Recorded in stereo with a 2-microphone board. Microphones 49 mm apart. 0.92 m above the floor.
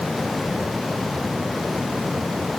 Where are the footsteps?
No footsteps in this recording.